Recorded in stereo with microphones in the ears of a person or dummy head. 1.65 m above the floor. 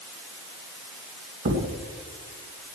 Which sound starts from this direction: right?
A thud, at 1.4 s.